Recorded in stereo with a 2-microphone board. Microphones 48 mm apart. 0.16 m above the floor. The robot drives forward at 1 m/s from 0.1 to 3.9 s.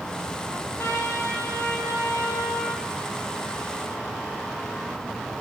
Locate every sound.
0.5 s a trumpet: 75° left (ahead or behind), 3.5 m; by 2.8 s 60° left (ahead or behind), 3.5 m